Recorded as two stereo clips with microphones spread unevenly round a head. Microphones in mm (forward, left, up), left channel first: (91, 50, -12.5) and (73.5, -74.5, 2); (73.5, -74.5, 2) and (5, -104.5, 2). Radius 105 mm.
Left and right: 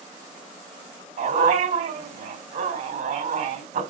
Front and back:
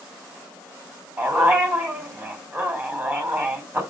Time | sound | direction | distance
1.2 | a dog barking | 90° right | 3.5 m